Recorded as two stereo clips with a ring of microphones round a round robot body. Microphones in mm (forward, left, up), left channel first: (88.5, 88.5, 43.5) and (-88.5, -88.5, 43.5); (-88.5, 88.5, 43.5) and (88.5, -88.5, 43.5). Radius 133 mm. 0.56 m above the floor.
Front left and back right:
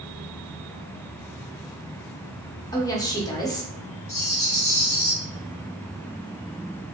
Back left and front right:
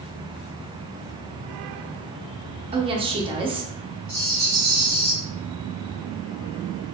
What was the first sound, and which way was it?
A woman speaking, 10° right.